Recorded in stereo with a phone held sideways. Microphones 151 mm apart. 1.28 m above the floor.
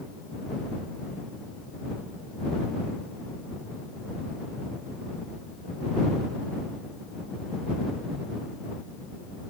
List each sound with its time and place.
Only background noise.